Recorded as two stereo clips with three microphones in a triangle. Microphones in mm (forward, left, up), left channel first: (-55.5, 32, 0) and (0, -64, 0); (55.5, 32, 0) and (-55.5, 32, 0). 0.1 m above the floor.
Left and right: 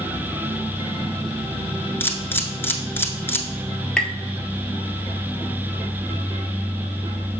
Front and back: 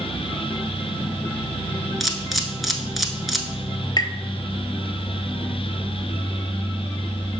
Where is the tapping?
40° left, 0.6 m.